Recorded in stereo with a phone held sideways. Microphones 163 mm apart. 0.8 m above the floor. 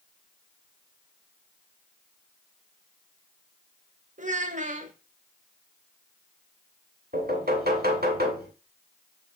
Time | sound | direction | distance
4.2 | a child speaking | 50° right (ahead or behind) | 0.6 m
7.1 | knocking | 75° right (ahead or behind) | 1.7 m